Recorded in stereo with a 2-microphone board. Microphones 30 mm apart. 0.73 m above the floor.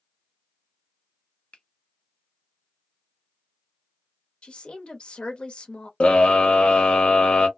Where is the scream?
40° left (ahead or behind), 0.9 m.